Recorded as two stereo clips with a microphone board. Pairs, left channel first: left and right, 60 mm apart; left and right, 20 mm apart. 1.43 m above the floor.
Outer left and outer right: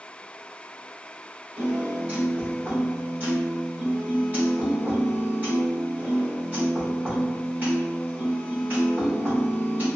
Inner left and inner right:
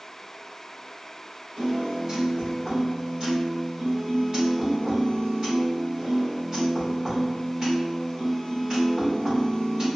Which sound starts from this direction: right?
A piano, at 1.6 s.